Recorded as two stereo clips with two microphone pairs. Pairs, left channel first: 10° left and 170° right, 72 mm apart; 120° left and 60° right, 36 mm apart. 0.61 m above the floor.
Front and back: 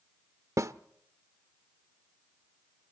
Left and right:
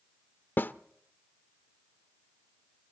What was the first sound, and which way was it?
A snare drum, 145° left.